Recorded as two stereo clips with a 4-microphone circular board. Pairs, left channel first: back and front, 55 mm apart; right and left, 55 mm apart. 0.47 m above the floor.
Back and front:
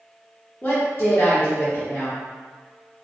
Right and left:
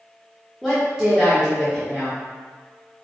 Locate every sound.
0.6 s a woman speaking: 170° left, 1.1 m